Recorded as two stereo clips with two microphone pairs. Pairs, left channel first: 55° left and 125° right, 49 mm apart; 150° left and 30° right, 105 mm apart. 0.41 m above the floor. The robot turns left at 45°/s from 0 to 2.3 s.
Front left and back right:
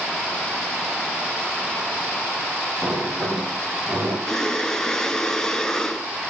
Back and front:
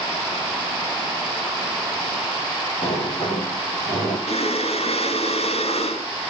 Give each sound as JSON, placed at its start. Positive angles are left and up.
{"t": 2.8, "sound": "a sliding door", "azimuth_deg": 165, "distance_m": 9.0}
{"t": 4.3, "sound": "breathing", "azimuth_deg": 135, "distance_m": 1.6}